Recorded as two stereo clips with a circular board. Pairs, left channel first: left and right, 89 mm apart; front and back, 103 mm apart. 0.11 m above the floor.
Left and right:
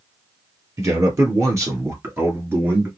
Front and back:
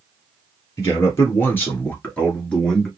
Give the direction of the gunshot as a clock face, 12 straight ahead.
I don't hear a gunshot.